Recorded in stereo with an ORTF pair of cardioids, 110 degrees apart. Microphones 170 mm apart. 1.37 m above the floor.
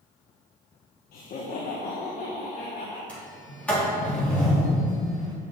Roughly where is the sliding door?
Ahead.